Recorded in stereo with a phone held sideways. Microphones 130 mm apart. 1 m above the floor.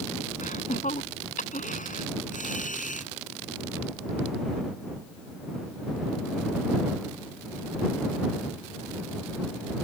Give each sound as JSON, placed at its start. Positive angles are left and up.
{"t": 0.4, "sound": "laughter", "side_deg": 80}